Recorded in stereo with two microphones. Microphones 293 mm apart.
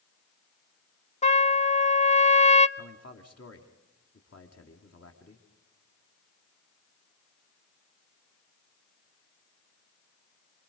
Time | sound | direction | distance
1.2 | a trumpet | 25° left (ahead or behind) | 0.6 m
2.8 | a man speaking | 55° left (ahead or behind) | 2 m